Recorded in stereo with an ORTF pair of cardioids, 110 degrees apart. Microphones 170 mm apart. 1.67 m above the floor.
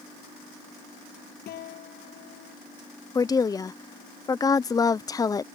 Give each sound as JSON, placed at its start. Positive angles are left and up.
{"t": 1.5, "sound": "a guitar", "azimuth_deg": 70}
{"t": 3.1, "sound": "a woman speaking", "azimuth_deg": 20}